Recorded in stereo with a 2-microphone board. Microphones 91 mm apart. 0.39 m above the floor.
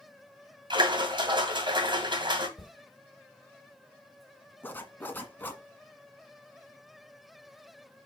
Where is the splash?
60° right (ahead or behind), 2 m.